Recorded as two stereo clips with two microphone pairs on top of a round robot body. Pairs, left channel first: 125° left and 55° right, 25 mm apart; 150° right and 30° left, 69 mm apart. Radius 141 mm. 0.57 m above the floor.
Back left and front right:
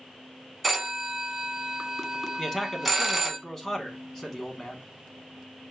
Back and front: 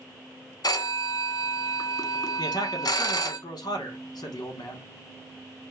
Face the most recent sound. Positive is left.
turn(degrees=-160)